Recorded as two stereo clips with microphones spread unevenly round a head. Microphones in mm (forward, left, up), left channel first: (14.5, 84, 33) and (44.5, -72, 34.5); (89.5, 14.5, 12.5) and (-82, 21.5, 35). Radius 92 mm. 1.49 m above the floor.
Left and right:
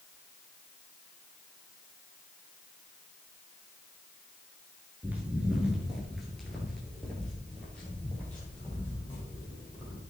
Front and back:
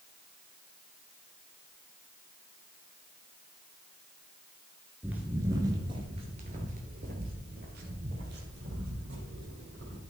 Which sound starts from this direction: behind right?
Footsteps, at 5.0 s.